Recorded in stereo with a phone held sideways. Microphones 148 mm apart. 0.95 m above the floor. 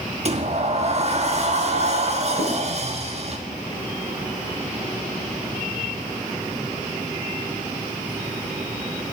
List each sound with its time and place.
0.2 s a sliding door: 45° right (ahead or behind), 1.3 m
2.4 s writing: 5° right (ahead or behind), 9 m